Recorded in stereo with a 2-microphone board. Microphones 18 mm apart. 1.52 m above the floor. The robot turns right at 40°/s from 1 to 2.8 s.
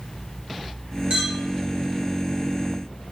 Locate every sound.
1.1 s a clink: 55° right (ahead or behind), 1.3 m; by 1.4 s 60° right (ahead or behind), 1.3 m